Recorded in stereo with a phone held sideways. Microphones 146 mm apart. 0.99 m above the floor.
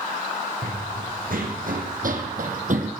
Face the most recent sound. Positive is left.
turn(degrees=-60)  # may be behind; listen again after turning